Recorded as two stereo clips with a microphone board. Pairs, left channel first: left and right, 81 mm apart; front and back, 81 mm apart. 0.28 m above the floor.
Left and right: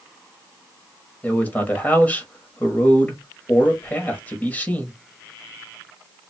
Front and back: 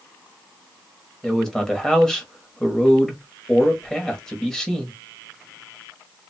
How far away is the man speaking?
About 1.3 m.